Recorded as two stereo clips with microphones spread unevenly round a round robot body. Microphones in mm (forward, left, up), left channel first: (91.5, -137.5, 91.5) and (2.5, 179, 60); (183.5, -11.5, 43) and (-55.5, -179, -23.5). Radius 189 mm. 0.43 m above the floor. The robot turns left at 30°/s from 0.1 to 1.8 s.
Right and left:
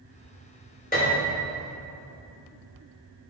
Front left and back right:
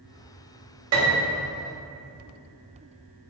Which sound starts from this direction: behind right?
A piano, at 0.9 s.